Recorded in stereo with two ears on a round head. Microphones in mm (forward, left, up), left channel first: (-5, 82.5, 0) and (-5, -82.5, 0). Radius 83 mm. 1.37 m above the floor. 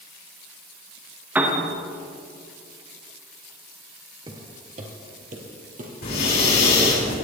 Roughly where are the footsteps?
Right.